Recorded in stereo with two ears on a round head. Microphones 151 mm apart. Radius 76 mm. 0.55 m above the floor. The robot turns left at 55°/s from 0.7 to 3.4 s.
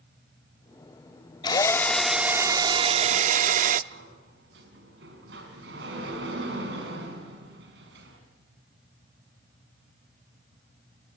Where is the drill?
35° left, 0.7 m; by 3.8 s 75° right, 0.7 m.